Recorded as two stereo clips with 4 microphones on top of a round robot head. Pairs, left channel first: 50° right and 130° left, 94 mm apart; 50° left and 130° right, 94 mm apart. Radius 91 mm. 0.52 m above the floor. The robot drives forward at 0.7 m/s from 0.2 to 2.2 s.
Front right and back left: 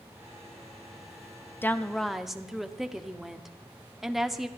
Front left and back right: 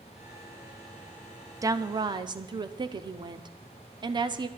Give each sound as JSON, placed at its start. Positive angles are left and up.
{"t": 1.6, "sound": "a woman speaking", "azimuth_deg": -105, "distance_m": 0.7}